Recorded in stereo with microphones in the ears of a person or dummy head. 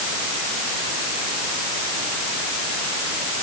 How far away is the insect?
I don't hear an insect.